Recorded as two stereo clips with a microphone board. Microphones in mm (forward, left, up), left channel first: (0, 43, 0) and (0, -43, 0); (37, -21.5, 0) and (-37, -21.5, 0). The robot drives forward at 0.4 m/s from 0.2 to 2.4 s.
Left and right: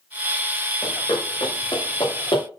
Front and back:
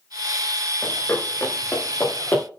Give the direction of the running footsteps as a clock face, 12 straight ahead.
10 o'clock.